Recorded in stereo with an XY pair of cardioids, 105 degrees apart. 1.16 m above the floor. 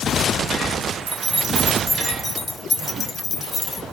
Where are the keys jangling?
40° right, 0.7 m; by 3.8 s 45° left, 1.4 m.